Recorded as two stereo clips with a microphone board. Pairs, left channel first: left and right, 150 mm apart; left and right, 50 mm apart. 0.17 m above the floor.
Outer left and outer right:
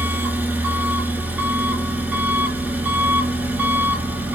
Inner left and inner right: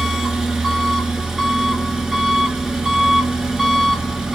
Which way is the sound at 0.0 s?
10° right (ahead or behind).